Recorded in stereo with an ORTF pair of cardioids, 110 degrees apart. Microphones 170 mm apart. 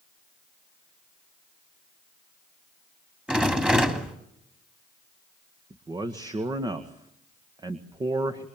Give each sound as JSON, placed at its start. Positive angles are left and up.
{"t": 3.3, "sound": "a rattle", "azimuth_deg": -5, "distance_m": 3.0}
{"t": 5.7, "sound": "a man speaking", "azimuth_deg": -25, "distance_m": 1.8}